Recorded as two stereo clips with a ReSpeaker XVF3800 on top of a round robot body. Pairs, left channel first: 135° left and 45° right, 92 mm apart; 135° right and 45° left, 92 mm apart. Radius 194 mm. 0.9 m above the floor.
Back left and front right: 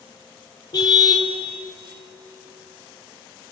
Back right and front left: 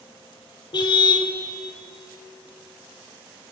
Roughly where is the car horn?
Behind.